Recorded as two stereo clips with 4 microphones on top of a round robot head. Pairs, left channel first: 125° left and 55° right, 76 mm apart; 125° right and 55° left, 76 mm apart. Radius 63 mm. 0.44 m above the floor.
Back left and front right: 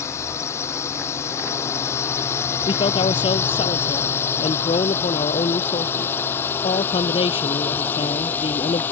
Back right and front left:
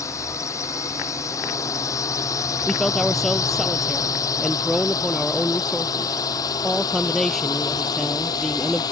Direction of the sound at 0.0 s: Straight behind.